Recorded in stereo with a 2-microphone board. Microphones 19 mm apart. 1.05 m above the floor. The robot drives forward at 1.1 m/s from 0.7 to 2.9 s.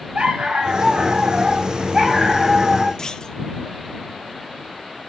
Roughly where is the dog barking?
Right.